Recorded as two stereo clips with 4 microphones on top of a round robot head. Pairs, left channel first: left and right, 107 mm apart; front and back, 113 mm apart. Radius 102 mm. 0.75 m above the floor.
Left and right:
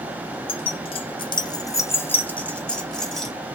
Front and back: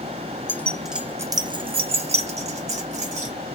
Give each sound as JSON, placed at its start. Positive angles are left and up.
{"t": 0.5, "sound": "keys jangling", "azimuth_deg": 70, "distance_m": 0.6}